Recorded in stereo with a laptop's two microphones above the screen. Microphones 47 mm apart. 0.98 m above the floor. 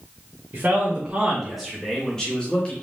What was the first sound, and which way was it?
A man speaking, 45° right (ahead or behind).